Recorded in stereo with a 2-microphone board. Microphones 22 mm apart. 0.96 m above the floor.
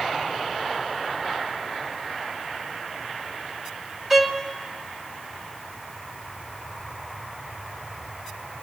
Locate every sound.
4.1 s a violin: 15° right (ahead or behind), 1.4 m